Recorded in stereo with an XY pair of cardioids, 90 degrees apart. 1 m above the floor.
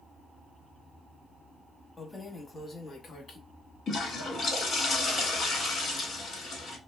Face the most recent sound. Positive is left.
turn(degrees=70)